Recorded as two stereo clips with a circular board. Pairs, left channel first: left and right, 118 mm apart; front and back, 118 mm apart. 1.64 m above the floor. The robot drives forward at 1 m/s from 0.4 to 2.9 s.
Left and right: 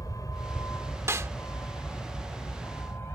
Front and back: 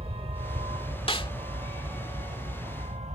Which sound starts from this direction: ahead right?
A snare drum, at 1.1 s.